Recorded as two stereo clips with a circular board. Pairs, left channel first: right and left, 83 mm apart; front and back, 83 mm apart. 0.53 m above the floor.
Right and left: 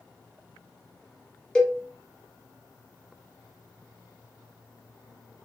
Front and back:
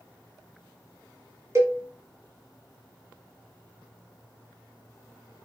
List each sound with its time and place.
1.6 s a cowbell: 165° right, 0.9 m